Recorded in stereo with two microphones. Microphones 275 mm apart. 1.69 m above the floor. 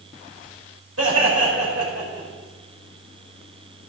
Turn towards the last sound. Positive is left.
turn(degrees=-60)  # may be behind; listen again after turning